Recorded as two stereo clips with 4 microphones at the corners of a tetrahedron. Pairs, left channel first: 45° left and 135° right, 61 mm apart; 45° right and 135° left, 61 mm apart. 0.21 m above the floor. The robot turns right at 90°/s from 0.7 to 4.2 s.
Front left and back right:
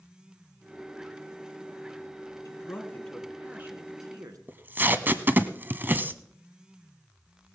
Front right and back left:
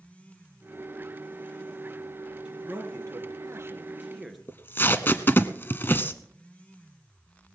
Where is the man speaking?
65° left, 2.5 m; by 4.4 s 135° right, 2.5 m.